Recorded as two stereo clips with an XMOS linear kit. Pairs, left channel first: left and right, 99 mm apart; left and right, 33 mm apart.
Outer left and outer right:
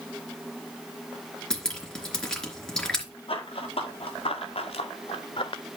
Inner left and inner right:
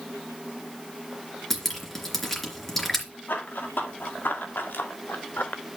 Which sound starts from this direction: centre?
Dripping, at 1.5 s.